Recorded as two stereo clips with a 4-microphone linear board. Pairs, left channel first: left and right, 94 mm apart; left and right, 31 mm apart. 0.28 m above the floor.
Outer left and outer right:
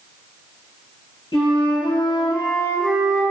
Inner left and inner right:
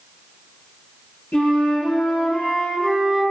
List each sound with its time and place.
1.3 s a flute: 60° left (ahead or behind), 1.8 m